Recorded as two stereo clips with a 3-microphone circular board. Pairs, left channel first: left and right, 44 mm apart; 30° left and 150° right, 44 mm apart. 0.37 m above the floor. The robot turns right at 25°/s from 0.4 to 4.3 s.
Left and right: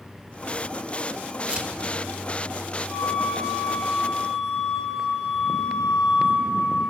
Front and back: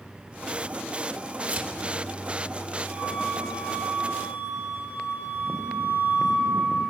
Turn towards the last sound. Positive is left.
turn(degrees=-175)